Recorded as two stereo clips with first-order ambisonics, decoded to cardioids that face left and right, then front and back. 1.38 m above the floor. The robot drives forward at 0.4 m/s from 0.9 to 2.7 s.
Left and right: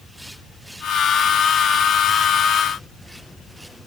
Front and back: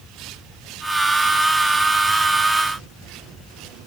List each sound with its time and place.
Only background noise.